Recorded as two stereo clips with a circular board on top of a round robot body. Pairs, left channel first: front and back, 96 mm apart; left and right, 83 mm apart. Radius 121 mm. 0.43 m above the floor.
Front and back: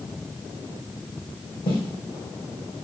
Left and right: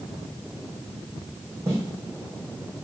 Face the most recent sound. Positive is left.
turn(degrees=-30)